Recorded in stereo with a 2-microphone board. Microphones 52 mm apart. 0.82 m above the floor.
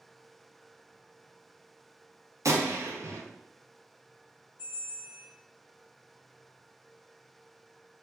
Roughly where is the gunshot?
Right.